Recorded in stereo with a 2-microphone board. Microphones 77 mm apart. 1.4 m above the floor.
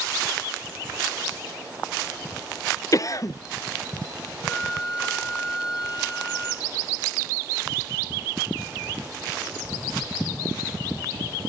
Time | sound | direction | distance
2.9 | a cough | 45° left (ahead or behind) | 0.6 m
4.4 | a flute | 80° left | 8 m